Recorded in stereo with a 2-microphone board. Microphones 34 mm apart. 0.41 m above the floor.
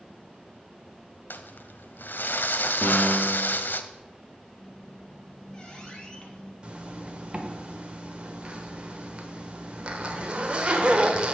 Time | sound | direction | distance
1.3 | crumpling | 80° left | 0.6 m
2.8 | a piano | 60° left (ahead or behind) | 1.7 m
4.5 | a squeak | 25° left (ahead or behind) | 1.7 m
6.6 | a zipper | 35° right (ahead or behind) | 1.0 m